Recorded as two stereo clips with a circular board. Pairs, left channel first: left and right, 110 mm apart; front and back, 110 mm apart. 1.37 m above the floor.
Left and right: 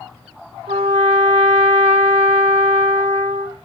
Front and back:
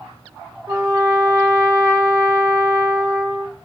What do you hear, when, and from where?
0.7 s a trumpet: 110° right, 1.1 m